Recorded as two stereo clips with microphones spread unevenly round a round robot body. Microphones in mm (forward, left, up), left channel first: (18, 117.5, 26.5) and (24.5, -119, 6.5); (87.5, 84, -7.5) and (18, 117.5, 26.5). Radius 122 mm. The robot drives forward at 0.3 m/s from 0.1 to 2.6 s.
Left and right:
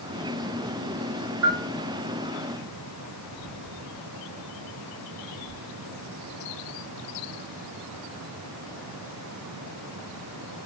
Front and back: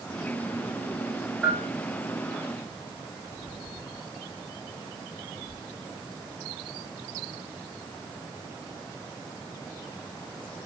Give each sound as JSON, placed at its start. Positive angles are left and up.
{"t": 1.4, "sound": "a bell", "azimuth_deg": -115, "distance_m": 8.5}